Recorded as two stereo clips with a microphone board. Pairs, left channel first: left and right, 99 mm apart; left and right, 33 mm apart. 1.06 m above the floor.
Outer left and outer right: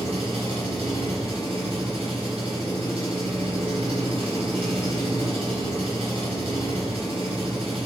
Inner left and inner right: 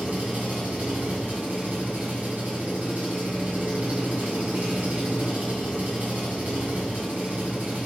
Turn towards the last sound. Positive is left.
turn(degrees=-75)  # may be behind; listen again after turning